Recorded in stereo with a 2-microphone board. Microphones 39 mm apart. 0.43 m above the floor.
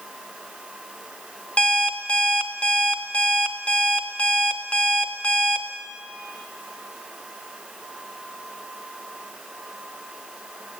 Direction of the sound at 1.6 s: 30° left (ahead or behind).